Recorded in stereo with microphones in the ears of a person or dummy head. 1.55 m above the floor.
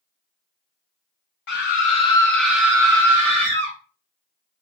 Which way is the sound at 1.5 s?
60° left (ahead or behind).